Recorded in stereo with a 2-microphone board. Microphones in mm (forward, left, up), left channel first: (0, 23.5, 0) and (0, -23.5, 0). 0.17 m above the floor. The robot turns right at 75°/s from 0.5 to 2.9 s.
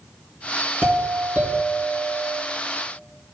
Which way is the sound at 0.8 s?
105° right.